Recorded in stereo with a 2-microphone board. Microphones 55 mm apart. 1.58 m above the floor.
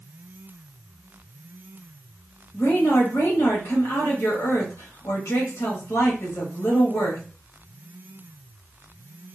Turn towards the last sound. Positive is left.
turn(degrees=65)  # may be behind; listen again after turning